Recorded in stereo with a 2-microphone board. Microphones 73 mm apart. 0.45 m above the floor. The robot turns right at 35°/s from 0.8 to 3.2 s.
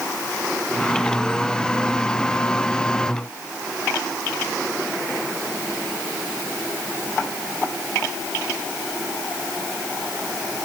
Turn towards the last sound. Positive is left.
No sound to turn to.